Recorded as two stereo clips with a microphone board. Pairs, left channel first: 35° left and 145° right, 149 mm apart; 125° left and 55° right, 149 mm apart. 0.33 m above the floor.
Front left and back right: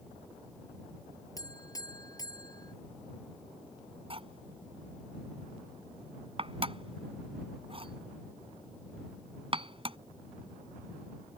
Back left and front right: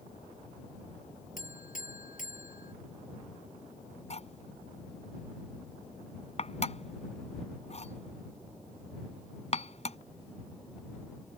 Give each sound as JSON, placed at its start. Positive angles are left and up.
{"t": 1.4, "sound": "a buzzer", "azimuth_deg": 100}
{"t": 4.1, "sound": "cutlery clinking", "azimuth_deg": 165}